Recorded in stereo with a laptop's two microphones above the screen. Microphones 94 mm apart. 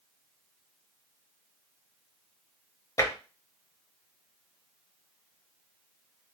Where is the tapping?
35° left (ahead or behind), 0.8 m.